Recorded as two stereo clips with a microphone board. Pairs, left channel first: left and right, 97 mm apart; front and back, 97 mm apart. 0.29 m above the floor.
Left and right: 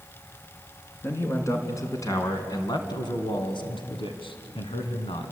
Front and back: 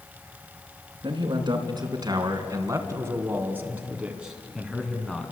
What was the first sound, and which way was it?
A man speaking, 150° left.